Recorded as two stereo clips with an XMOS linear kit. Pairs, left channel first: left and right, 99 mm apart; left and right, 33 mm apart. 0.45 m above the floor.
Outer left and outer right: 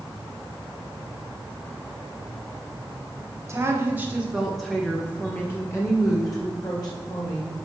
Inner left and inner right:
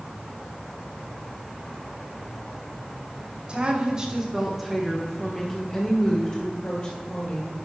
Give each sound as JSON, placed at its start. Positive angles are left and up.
{"t": 3.5, "sound": "a woman speaking", "side_deg": -30, "distance_m": 1.3}